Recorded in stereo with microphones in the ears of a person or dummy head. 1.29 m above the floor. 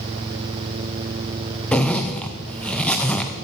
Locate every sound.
1.7 s a zipper: 10° left (ahead or behind), 0.6 m